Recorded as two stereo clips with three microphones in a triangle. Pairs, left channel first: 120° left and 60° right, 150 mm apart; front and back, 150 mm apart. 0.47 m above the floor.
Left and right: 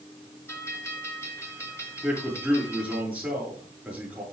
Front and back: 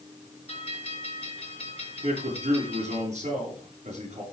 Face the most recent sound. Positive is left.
turn(degrees=-140)